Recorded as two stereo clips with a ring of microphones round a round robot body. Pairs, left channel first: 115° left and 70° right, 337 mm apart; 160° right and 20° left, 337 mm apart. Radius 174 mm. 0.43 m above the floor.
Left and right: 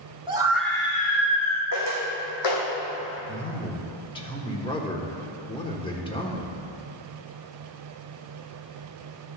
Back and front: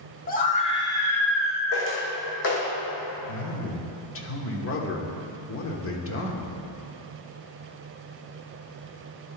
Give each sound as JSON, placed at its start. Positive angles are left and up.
{"t": 0.3, "sound": "a scream", "azimuth_deg": -125, "distance_m": 1.2}
{"t": 1.7, "sound": "footsteps", "azimuth_deg": 150, "distance_m": 2.0}
{"t": 3.3, "sound": "a man speaking", "azimuth_deg": 180, "distance_m": 1.2}